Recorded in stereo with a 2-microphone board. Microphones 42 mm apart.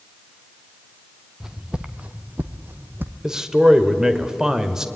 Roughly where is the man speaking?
Centre.